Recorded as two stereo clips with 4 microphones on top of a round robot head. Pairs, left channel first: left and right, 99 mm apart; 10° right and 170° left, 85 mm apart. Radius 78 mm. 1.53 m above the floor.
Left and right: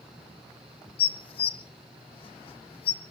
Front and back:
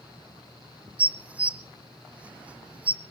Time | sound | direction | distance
1.0 | dishes clattering | 100° left | 0.7 m